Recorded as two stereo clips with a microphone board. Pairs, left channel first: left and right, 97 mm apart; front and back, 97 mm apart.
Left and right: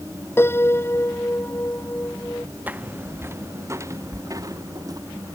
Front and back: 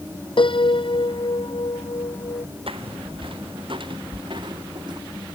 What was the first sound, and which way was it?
A piano, 25° left.